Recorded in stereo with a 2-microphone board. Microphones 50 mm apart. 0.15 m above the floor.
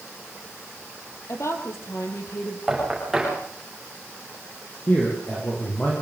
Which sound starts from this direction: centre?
Knocking, at 2.7 s.